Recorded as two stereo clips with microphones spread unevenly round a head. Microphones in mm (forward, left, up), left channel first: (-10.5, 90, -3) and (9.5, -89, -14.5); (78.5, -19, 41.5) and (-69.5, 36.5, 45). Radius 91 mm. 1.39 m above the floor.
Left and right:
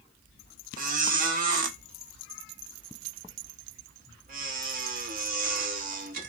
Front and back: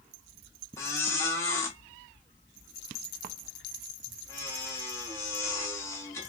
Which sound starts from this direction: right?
A squeak, at 0.8 s.